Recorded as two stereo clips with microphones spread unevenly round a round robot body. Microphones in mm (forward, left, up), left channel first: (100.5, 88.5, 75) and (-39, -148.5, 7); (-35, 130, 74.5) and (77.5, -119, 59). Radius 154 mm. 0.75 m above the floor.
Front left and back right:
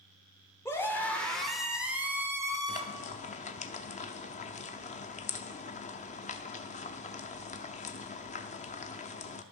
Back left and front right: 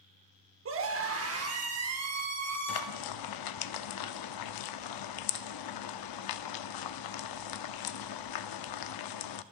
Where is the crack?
No crack in this recording.